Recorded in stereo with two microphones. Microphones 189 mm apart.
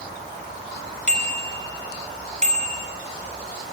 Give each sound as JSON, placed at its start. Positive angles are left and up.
{"t": 1.1, "sound": "a bicycle bell", "side_deg": -40, "distance_m": 5.0}